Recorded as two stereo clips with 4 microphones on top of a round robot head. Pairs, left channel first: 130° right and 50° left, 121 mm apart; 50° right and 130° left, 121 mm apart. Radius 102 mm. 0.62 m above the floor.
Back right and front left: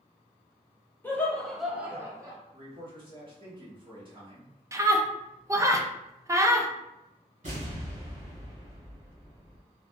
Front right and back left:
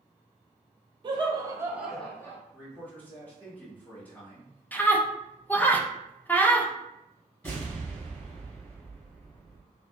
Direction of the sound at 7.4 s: 25° left.